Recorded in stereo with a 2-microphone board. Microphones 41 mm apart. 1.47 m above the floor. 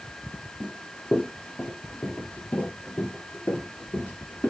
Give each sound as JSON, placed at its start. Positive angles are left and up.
{"t": 0.6, "sound": "running footsteps", "side_deg": 30, "distance_m": 2.0}